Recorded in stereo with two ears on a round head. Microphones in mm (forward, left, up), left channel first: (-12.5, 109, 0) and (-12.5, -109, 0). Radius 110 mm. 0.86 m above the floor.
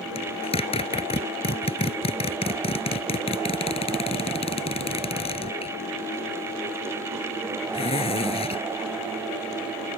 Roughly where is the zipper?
Left.